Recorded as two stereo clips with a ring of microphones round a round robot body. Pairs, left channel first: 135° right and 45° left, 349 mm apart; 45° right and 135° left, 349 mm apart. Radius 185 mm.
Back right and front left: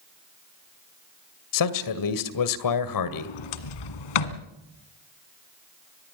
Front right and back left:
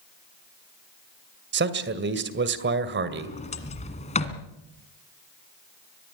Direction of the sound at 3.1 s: 115° right.